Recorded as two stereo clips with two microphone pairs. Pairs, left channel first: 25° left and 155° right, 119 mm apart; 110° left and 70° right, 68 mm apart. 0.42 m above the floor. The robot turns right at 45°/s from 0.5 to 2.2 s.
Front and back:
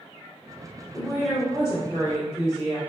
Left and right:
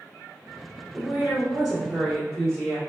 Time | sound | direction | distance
0.9 | a woman speaking | 25° right | 1.5 m